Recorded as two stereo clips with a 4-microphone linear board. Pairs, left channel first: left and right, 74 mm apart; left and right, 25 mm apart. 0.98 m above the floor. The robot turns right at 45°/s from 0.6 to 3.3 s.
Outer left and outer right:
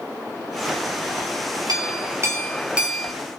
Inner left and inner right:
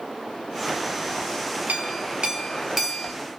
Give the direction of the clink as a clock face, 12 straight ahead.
2 o'clock.